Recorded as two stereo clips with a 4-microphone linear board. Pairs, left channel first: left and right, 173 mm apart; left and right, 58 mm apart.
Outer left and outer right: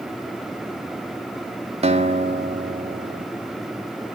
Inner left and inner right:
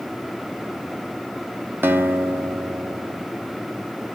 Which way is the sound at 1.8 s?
35° right (ahead or behind).